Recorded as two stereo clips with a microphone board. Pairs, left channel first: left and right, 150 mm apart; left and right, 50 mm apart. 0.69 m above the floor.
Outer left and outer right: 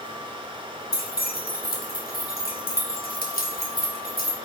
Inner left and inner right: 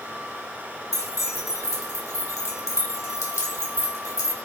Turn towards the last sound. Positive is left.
turn(degrees=80)